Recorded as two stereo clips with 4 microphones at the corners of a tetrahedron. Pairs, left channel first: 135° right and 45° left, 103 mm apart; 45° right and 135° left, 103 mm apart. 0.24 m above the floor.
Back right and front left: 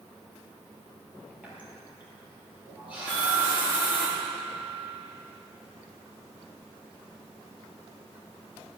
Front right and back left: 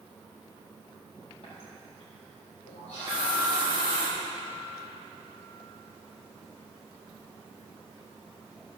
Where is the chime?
65° right, 5 m.